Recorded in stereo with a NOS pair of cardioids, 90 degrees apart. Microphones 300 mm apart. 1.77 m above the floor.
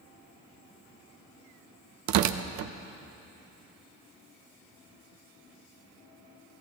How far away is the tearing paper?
About 0.7 m.